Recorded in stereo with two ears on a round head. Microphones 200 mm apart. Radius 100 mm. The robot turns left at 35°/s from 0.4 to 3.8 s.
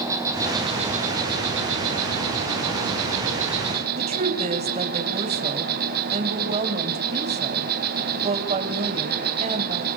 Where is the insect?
15° right, 4.5 m; by 10.0 s 135° right, 4.5 m.